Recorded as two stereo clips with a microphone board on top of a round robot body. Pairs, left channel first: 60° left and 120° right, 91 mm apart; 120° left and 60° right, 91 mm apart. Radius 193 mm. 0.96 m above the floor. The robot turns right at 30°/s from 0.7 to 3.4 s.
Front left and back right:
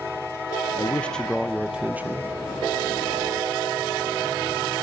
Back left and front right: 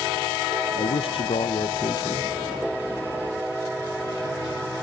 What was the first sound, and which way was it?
A man speaking, 130° left.